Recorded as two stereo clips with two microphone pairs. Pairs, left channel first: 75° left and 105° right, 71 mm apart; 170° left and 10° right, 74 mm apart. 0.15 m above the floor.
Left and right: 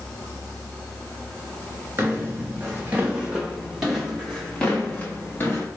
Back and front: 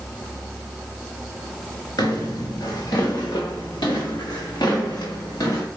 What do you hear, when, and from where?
2.0 s footsteps: 165° right, 2.5 m; by 5.7 s 130° left, 2 m